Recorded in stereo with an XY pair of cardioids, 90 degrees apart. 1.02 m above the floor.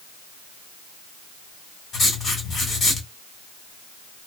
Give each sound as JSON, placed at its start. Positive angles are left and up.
{"t": 1.9, "sound": "writing", "azimuth_deg": 60, "distance_m": 2.0}